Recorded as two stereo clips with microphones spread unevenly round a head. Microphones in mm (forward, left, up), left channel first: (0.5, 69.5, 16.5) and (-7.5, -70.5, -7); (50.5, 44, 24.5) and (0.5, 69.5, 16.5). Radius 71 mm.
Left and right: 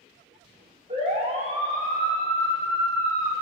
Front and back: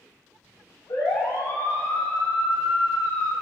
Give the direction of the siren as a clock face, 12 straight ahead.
2 o'clock.